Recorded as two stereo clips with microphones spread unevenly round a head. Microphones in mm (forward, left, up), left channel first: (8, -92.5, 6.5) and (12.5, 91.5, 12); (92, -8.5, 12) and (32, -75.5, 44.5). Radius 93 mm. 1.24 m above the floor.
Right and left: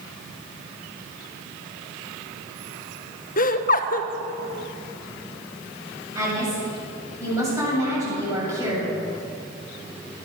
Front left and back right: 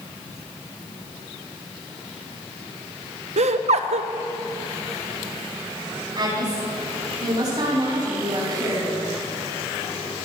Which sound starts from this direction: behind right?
Laughter, at 3.4 s.